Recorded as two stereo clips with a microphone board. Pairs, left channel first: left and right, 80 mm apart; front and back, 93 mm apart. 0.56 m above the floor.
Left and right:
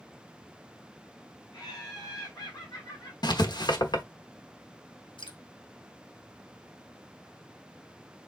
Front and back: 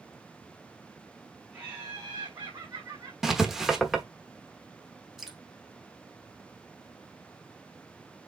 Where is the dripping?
95° left, 1.7 m.